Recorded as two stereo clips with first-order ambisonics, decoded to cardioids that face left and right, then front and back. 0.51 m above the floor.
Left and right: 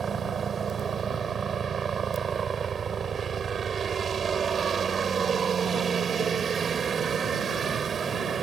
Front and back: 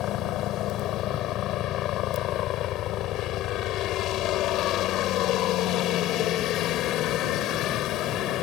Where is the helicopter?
30° right.